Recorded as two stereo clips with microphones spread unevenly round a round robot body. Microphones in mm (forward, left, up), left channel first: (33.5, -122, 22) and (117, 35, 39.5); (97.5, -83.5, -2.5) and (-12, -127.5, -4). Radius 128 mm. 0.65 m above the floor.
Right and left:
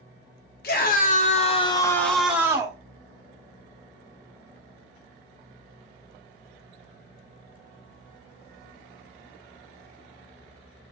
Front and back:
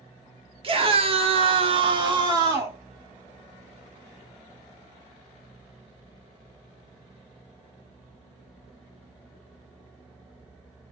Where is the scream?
130° right, 1.6 m; by 2.8 s 130° left, 1.4 m.